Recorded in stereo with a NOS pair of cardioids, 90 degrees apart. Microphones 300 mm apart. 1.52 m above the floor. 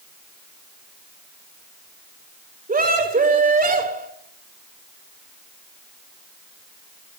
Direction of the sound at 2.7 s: 25° right.